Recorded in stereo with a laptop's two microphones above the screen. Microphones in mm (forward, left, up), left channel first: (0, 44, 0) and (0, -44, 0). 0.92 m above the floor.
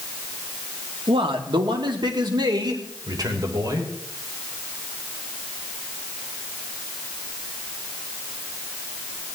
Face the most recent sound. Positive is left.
turn(degrees=-45)  # may be behind; listen again after turning